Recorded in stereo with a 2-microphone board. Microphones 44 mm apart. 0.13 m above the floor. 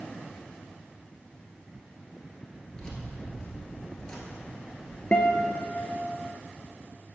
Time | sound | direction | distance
2.7 | keys jangling | 15° left (ahead or behind) | 1.4 m
5.1 | a guitar | 30° left (ahead or behind) | 0.6 m